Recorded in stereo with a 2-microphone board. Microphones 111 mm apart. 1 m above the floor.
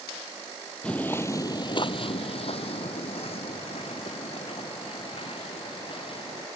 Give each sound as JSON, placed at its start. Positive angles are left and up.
{"t": 0.8, "sound": "footsteps", "side_deg": 10}